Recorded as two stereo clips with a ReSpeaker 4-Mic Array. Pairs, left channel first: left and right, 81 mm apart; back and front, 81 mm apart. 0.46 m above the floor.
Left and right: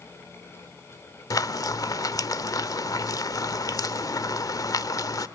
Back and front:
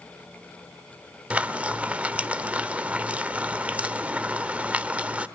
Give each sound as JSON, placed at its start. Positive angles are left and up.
{"t": 1.3, "sound": "frying", "azimuth_deg": 70, "distance_m": 0.9}